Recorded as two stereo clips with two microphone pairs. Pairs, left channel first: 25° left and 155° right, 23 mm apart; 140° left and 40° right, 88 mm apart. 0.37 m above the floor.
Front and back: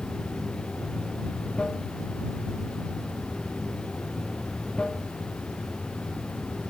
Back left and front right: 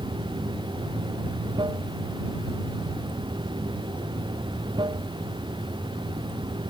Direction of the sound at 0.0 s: 10° right.